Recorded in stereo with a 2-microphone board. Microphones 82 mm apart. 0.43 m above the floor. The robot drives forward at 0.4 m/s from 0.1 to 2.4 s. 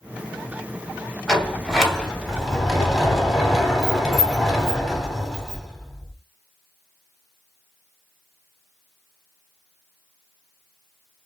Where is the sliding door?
Centre (ahead or behind), 1.3 m.